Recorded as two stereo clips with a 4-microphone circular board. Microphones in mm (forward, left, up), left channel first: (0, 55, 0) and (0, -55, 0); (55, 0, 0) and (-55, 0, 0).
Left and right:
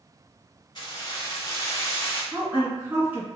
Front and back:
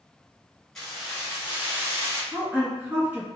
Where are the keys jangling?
85° left, 1.3 m; by 2.2 s 150° left, 1.2 m.